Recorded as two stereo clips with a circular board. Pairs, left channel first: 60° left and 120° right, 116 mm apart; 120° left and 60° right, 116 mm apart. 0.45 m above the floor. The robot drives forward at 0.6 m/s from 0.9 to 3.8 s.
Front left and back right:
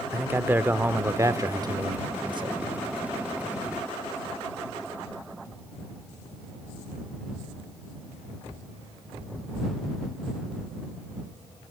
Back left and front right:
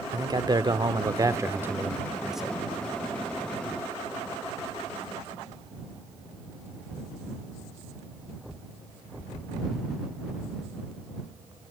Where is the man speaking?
60° right, 0.9 m; by 2.6 s 150° right, 1.1 m.